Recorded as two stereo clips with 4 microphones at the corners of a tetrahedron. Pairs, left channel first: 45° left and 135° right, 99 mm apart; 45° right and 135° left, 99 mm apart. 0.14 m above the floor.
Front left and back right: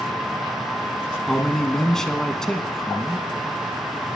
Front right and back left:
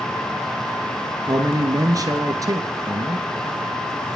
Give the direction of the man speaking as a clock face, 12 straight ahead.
8 o'clock.